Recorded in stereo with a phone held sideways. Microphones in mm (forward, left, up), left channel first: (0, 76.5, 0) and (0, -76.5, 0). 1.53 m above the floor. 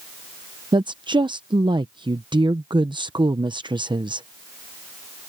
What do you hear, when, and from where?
0.7 s a woman speaking: 30° right (ahead or behind)